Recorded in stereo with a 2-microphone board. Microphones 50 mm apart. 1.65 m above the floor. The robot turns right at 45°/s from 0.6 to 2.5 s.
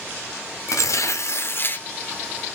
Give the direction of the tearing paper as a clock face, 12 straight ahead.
9 o'clock.